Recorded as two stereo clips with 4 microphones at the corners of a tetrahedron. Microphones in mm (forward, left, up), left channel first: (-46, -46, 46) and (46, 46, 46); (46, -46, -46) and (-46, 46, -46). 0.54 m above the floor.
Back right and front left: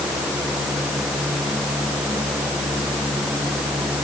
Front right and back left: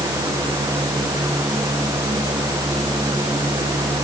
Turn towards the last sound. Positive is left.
No sound to turn to.